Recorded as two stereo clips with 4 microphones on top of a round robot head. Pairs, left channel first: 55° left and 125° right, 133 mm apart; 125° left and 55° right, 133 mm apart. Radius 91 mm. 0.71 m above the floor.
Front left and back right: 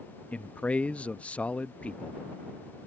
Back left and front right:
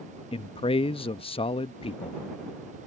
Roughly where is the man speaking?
Behind left.